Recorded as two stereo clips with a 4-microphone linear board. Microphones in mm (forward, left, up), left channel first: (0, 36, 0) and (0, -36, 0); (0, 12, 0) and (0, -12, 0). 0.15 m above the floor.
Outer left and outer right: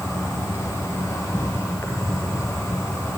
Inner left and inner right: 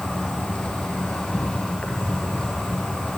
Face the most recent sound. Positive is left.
turn(degrees=50)  # may be behind; listen again after turning